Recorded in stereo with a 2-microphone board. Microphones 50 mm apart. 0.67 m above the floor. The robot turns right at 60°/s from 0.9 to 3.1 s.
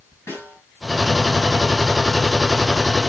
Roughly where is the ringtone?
No ringtone in this recording.